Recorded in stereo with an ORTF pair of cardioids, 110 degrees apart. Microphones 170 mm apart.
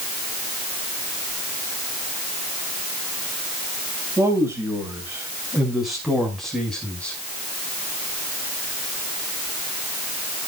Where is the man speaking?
15° right, 6 m; by 7.2 s 5° left, 5.5 m.